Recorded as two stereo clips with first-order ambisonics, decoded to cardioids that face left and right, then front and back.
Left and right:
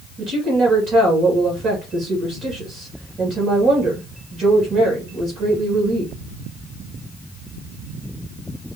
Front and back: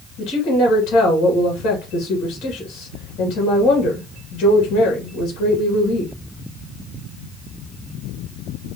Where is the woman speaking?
40° right, 1.8 m.